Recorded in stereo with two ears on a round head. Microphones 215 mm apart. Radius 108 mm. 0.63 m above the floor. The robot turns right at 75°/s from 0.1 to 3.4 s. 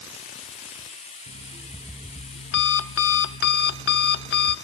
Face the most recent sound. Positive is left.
turn(degrees=125)